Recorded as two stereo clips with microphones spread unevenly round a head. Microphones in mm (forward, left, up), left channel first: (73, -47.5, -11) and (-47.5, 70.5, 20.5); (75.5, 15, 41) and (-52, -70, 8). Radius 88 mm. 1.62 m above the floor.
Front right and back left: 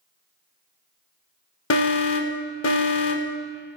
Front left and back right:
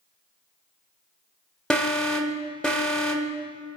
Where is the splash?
I don't hear a splash.